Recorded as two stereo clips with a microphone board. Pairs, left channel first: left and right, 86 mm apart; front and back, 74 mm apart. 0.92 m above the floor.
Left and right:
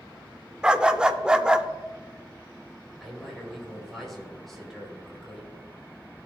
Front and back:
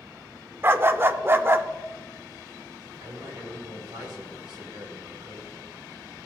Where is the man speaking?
Straight behind, 3.5 m.